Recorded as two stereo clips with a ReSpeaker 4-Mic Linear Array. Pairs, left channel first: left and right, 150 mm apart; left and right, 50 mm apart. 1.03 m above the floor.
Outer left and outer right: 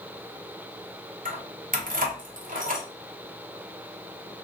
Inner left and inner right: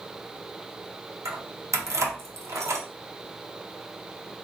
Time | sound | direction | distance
1.2 | keys jangling | 70° right (ahead or behind) | 0.7 m